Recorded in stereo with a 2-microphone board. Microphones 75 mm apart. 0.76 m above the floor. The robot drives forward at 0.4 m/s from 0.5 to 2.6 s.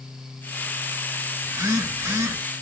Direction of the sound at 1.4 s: 45° right (ahead or behind).